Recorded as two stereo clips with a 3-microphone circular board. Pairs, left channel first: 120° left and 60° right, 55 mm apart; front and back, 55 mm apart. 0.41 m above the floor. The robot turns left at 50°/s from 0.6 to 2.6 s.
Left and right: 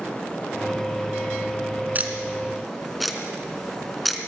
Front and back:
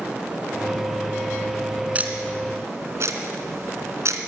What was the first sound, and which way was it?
Ticking, 115° right.